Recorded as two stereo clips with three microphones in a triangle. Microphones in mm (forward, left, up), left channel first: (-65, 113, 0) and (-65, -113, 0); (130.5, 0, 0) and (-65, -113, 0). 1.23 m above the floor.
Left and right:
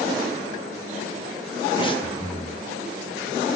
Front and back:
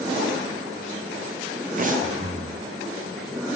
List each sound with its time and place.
1.8 s breathing: 160° left, 1.2 m